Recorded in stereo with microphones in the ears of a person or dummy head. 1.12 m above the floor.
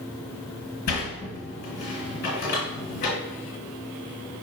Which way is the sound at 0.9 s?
45° left (ahead or behind).